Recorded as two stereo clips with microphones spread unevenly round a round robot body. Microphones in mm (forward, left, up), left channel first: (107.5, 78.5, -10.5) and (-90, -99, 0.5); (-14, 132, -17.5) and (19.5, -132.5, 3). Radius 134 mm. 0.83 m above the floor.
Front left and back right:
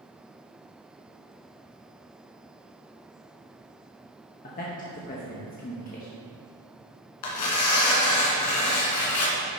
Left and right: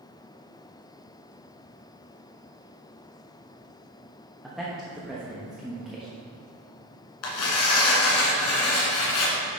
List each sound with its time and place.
4.4 s a man speaking: 10° left, 1.1 m
7.2 s tearing paper: 65° left, 2 m